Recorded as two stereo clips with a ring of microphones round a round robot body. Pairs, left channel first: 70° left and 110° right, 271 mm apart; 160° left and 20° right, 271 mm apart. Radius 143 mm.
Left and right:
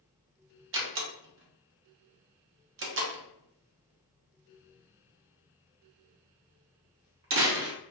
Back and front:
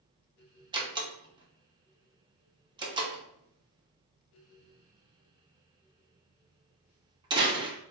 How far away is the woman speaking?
No woman speaking in this recording.